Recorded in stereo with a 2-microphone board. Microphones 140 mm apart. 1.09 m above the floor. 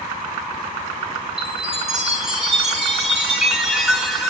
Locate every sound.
1.4 s a chime: 5° right (ahead or behind), 4 m